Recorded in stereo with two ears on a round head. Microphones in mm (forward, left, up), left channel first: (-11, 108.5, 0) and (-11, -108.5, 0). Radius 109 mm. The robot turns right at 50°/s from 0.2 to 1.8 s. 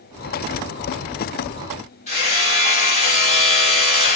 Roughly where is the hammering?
Left.